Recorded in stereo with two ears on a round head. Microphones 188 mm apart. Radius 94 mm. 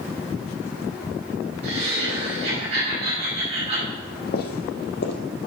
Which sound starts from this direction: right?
Laughter, at 1.6 s.